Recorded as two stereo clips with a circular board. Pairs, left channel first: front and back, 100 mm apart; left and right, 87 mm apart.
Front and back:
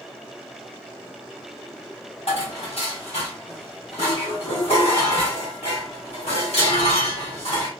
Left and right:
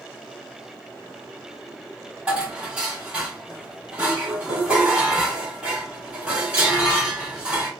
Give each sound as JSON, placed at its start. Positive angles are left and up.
{"t": 2.3, "sound": "dishes clattering", "azimuth_deg": -15, "distance_m": 1.5}